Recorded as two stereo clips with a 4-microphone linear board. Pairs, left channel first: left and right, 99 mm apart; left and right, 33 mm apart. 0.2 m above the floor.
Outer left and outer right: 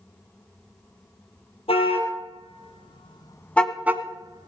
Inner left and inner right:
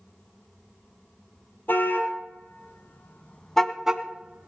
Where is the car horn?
75° left (ahead or behind), 3 m; by 4.5 s 45° right (ahead or behind), 1.6 m.